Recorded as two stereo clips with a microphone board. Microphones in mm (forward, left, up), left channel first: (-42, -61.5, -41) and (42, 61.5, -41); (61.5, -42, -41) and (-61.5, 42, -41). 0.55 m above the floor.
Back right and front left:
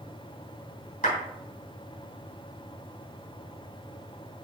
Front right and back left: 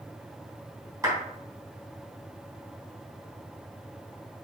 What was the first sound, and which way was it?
A clap, 145° right.